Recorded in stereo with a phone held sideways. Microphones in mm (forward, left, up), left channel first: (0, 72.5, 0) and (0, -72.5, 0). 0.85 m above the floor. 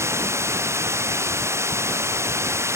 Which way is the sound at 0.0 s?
20° right (ahead or behind).